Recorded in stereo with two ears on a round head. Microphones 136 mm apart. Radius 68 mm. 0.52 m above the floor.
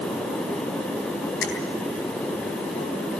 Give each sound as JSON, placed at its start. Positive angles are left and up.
{"t": 1.4, "sound": "a finger snap", "side_deg": 85, "distance_m": 9.5}